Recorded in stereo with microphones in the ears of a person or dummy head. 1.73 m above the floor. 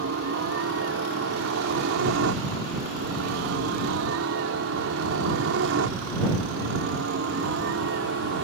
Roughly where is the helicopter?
Right.